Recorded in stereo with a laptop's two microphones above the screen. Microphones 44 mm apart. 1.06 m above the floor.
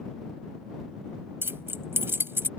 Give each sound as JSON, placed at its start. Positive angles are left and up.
{"t": 1.4, "sound": "keys jangling", "side_deg": -60}